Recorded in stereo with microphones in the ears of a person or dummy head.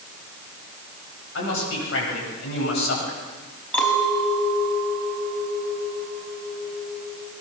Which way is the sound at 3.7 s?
10° left (ahead or behind).